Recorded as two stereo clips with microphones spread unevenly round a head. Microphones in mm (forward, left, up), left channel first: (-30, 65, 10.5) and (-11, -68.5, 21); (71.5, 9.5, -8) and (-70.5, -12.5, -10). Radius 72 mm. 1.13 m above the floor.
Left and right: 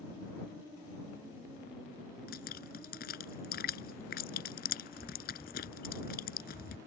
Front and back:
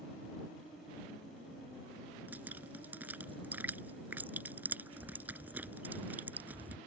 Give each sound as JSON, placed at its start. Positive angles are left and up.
{"t": 2.3, "sound": "dripping", "azimuth_deg": 110}